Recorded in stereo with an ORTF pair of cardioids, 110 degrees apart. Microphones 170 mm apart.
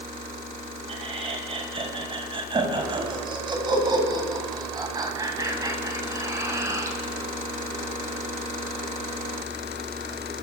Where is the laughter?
35° right, 9 m; by 7.0 s 15° right, 11 m.